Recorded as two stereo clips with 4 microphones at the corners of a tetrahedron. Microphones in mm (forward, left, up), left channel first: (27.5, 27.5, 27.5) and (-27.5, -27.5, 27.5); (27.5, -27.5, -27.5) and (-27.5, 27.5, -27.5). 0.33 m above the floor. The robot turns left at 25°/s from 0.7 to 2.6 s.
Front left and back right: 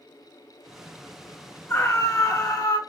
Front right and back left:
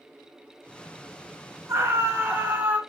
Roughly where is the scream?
Left.